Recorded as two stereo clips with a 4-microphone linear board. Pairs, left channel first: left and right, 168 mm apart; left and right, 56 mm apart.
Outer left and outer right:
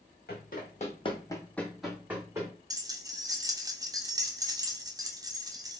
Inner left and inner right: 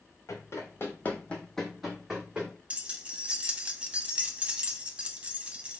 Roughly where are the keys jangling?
Right.